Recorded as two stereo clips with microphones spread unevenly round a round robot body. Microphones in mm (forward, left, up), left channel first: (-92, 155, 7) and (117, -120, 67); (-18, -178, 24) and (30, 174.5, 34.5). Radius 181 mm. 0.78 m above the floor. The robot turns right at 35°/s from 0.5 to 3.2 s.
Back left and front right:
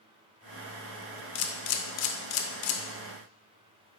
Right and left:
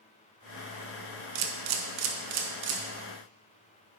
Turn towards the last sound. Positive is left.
turn(degrees=160)